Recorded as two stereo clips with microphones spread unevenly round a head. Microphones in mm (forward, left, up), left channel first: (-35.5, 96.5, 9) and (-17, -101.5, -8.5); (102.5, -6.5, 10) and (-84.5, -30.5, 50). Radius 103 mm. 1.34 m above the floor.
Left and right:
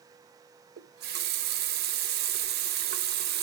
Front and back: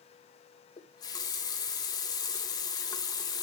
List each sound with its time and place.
0.8 s a running tap: 70° right, 0.7 m